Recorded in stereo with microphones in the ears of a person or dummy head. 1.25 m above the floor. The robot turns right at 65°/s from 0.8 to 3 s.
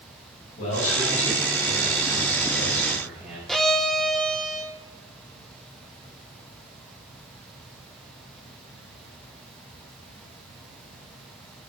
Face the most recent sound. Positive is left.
turn(degrees=5)  # may be behind; listen again after turning